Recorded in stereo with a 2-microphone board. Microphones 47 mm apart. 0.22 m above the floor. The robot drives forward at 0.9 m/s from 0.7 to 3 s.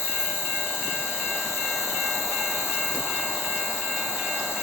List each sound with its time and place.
0.0 s an insect: 60° left (ahead or behind), 2.5 m; by 4.6 s 65° left (ahead or behind), 2.5 m